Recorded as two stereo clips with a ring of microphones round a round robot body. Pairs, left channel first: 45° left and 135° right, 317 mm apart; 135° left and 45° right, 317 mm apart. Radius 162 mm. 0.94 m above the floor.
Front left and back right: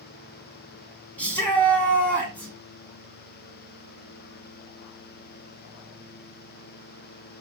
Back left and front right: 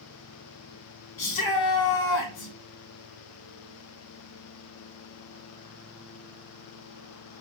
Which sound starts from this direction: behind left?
A shout, at 1.2 s.